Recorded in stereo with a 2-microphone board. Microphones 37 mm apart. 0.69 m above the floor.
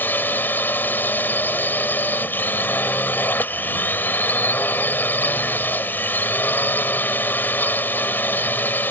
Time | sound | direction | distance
0.0 | a drone | 75° left (ahead or behind) | ?